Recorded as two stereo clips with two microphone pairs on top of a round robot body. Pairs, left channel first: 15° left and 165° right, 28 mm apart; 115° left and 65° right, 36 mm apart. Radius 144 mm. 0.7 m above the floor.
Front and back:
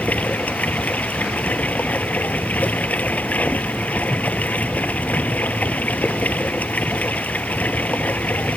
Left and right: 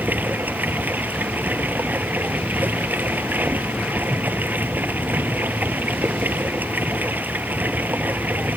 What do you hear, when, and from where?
0.0 s running water: 25° right